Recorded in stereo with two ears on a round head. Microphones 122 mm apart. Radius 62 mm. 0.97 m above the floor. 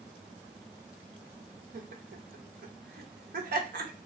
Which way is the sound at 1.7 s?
70° right (ahead or behind).